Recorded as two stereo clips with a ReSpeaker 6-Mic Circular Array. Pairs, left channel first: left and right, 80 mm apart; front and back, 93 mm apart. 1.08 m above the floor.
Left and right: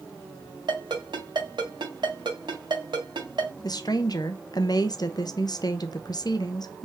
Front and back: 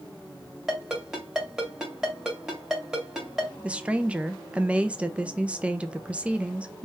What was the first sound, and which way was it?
A ringtone, 95° right.